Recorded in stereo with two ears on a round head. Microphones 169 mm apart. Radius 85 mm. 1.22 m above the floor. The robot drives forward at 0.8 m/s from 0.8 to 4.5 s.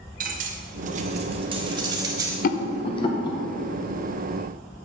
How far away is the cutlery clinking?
About 0.8 m.